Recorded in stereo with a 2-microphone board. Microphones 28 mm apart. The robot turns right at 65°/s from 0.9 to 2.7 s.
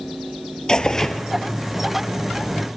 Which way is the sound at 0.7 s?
25° left (ahead or behind).